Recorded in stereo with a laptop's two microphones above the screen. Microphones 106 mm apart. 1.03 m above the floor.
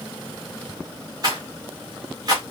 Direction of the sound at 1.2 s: 40° right (ahead or behind).